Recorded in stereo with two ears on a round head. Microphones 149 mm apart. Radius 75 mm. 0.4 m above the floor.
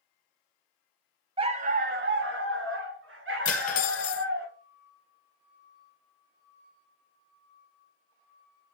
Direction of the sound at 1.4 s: 30° right (ahead or behind).